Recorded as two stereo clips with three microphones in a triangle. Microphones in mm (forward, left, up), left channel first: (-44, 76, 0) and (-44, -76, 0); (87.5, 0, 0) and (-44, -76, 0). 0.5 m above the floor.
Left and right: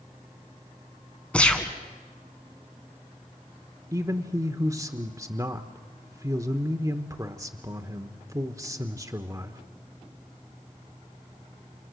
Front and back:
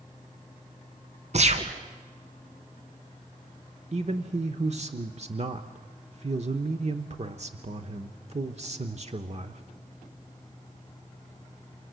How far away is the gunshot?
About 2.0 m.